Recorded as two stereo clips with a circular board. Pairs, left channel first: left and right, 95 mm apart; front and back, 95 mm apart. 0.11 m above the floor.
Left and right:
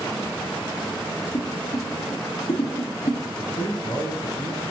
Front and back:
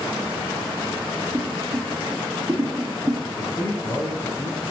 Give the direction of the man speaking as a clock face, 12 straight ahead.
10 o'clock.